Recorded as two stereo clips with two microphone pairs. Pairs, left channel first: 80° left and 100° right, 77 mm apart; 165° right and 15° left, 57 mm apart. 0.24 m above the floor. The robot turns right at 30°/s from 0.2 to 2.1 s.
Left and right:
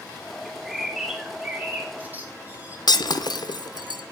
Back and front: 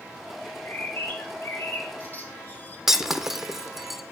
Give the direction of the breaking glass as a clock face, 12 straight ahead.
9 o'clock.